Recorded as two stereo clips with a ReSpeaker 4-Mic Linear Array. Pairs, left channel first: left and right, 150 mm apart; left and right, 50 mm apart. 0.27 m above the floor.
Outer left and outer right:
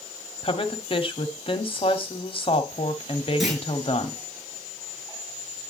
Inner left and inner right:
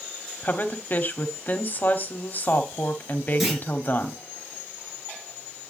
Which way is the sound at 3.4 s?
Centre (ahead or behind).